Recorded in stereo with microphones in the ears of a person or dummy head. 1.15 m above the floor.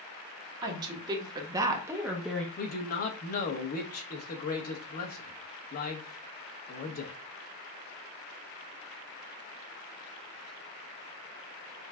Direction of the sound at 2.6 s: 40° left (ahead or behind).